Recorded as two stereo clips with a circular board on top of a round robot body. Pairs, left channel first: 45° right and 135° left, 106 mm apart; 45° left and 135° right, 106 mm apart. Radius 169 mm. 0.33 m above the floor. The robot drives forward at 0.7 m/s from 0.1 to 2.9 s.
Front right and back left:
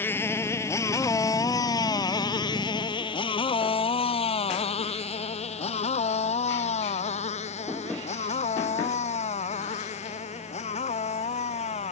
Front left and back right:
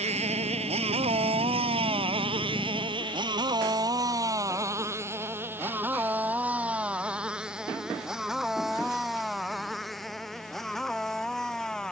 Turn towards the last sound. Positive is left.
turn(degrees=-40)